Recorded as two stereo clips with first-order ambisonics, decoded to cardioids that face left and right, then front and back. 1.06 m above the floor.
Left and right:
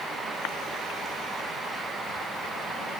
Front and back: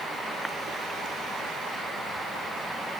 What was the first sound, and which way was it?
Only background noise.